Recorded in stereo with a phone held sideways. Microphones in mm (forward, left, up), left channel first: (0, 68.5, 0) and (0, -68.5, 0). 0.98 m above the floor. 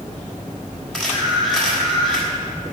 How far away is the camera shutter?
About 3.5 m.